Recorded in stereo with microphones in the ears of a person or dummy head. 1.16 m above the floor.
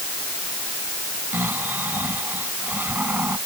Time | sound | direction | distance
1.3 | snoring | 15° right (ahead or behind) | ?